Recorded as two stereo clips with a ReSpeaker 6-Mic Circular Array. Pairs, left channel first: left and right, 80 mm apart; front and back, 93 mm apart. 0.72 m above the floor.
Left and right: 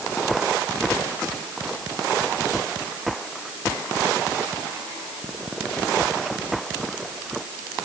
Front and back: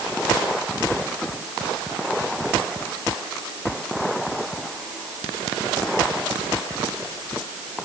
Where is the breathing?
I don't hear breathing.